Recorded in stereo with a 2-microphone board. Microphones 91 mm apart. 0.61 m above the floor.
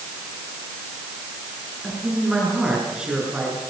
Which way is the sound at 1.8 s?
10° right (ahead or behind).